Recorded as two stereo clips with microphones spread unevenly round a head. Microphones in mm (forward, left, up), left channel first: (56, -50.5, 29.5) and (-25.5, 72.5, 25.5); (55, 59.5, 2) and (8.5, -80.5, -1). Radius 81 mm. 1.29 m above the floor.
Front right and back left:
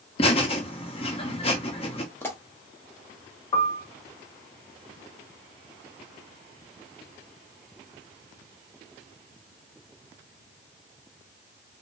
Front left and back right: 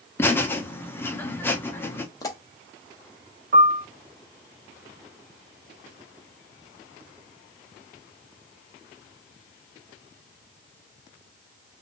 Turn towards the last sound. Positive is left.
turn(degrees=-110)